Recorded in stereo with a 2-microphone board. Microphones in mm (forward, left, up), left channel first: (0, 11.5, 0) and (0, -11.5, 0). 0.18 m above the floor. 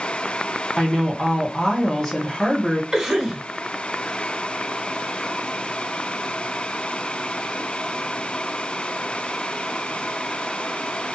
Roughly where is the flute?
I don't hear a flute.